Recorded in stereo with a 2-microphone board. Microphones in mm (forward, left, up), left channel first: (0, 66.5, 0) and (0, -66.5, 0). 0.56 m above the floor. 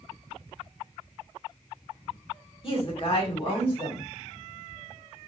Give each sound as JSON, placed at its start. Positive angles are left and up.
{"t": 2.6, "sound": "a woman speaking", "side_deg": 40, "distance_m": 1.7}